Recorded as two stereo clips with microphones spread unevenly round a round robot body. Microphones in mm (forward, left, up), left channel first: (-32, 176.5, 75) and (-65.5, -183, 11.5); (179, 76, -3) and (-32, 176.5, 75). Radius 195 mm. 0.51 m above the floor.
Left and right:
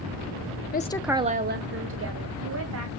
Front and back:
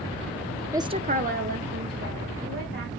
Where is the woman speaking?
45° left, 0.7 m; by 2.9 s 140° right, 2.5 m.